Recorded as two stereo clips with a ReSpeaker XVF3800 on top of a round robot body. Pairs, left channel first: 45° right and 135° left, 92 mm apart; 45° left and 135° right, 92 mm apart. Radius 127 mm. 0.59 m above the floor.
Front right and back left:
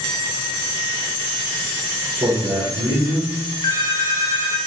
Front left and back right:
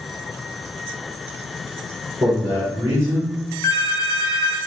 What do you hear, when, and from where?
2.2 s a man speaking: 170° left, 2.0 m
3.6 s a phone ringing: 5° right, 0.5 m